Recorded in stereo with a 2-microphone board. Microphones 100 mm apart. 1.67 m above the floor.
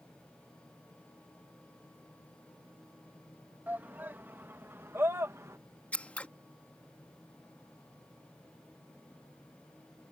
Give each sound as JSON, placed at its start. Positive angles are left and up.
{"t": 3.7, "sound": "a shout", "side_deg": -20}
{"t": 5.9, "sound": "scissors", "side_deg": 15}